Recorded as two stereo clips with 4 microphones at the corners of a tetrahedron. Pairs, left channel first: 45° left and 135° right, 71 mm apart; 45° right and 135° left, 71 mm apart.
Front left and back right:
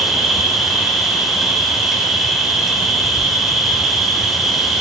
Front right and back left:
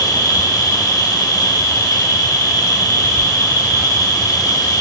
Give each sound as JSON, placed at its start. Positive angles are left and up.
{"t": 0.0, "sound": "an insect", "azimuth_deg": -50, "distance_m": 1.0}